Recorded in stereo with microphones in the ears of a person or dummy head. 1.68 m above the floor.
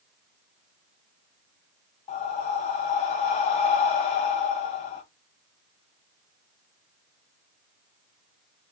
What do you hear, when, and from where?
2.1 s breathing: 35° left (ahead or behind), 0.7 m